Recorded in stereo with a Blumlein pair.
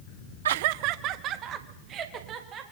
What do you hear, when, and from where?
0.5 s laughter: 60° right, 0.6 m; by 2.6 s 30° right, 4 m